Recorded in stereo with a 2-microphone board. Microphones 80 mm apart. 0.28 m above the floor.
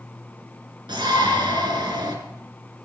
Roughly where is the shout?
Right.